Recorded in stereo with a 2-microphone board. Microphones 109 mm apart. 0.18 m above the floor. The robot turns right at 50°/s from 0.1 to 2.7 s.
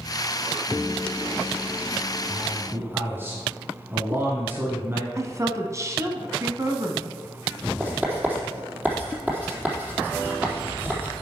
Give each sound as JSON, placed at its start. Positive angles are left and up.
{"t": 2.3, "sound": "a man speaking", "side_deg": -10, "distance_m": 1.5}
{"t": 5.2, "sound": "a woman speaking", "side_deg": -30, "distance_m": 1.2}
{"t": 7.8, "sound": "writing", "side_deg": -15, "distance_m": 4.0}